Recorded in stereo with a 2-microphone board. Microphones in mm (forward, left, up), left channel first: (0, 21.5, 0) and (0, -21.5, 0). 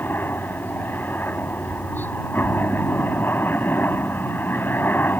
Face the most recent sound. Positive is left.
turn(degrees=55)  # may be behind; listen again after turning